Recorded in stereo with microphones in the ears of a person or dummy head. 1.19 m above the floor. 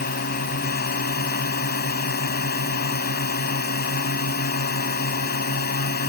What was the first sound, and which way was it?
A drone, 50° left (ahead or behind).